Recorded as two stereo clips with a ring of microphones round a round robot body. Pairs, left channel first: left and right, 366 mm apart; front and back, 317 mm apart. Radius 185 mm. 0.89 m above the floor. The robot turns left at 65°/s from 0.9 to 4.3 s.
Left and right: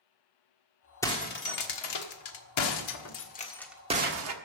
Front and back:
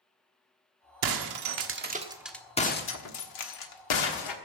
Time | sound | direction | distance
1.0 | breaking glass | 175° left | 1.4 m